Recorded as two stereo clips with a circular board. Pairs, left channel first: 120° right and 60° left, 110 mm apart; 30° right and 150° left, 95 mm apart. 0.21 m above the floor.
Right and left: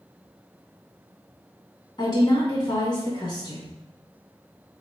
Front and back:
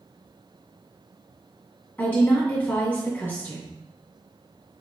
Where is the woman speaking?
95° right, 2.5 m.